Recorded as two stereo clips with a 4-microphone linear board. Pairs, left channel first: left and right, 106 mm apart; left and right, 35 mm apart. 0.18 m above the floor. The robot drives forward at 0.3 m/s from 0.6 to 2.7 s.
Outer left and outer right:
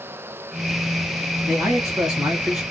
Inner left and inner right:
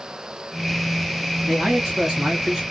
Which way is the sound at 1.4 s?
5° right (ahead or behind).